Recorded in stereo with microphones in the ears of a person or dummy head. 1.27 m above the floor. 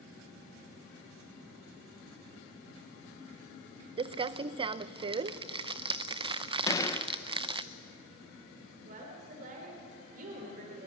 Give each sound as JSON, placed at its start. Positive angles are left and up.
{"t": 4.0, "sound": "crumpling", "side_deg": -30, "distance_m": 0.5}
{"t": 6.7, "sound": "a gunshot", "side_deg": 15, "distance_m": 1.1}
{"t": 8.8, "sound": "a woman speaking", "side_deg": -50, "distance_m": 4.0}